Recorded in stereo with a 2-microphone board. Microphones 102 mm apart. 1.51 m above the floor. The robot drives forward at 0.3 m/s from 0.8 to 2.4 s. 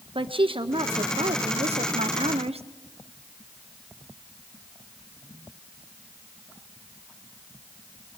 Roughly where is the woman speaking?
Right.